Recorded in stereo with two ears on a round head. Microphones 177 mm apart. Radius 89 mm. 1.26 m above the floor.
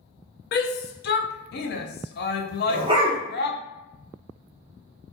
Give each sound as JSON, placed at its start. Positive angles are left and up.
{"t": 0.5, "sound": "a shout", "side_deg": 50, "distance_m": 0.6}
{"t": 2.7, "sound": "a dog barking", "side_deg": -25, "distance_m": 0.8}